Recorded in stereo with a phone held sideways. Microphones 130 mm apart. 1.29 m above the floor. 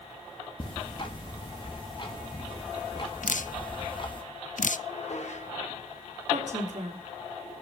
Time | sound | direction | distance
0.6 | ticking | 40° left (ahead or behind) | 2 m
3.2 | dripping | 80° left | 0.5 m
4.9 | dishes clattering | 60° left (ahead or behind) | 3 m
6.3 | a woman speaking | 65° right (ahead or behind) | 3 m